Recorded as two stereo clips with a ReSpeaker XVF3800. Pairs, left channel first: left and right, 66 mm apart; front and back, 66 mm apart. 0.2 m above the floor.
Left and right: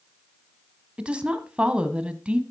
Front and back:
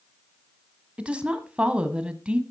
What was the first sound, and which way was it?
A woman speaking, 135° right.